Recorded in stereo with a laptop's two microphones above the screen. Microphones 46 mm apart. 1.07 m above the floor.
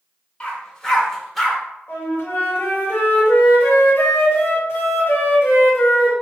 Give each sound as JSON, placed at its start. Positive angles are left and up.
{"t": 0.4, "sound": "a dog barking", "side_deg": 25, "distance_m": 1.5}
{"t": 1.9, "sound": "a flute", "side_deg": 65, "distance_m": 2.0}